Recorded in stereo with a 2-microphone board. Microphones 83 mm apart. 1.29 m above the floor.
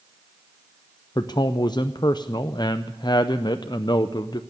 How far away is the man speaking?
About 0.5 m.